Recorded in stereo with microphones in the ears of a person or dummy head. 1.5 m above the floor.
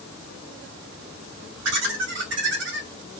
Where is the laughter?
70° right (ahead or behind), 3 m.